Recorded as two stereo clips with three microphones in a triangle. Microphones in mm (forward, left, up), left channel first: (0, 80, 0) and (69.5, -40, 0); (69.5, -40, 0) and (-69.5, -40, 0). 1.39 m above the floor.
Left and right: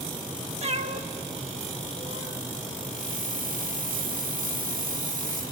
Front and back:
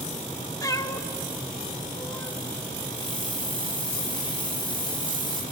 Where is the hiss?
55° right, 4 m.